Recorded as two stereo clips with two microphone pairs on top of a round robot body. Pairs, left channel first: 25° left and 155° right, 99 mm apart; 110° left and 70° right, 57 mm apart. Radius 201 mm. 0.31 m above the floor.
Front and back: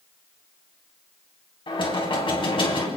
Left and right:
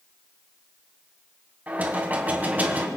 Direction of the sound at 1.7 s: 5° right.